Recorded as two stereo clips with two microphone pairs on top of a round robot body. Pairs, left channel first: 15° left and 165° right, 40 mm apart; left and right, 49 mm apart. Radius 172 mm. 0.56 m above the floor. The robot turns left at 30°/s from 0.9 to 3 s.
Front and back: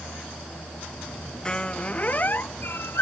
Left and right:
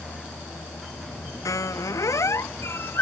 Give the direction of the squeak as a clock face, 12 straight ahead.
9 o'clock.